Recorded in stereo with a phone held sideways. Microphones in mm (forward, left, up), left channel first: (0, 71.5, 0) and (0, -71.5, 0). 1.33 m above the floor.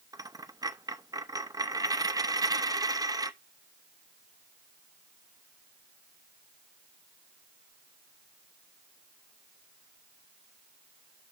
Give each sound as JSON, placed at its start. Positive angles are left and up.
{"t": 0.1, "sound": "a dropped coin", "side_deg": -25, "distance_m": 0.6}